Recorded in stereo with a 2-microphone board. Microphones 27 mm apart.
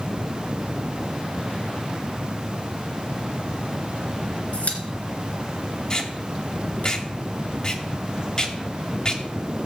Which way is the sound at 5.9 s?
30° left (ahead or behind).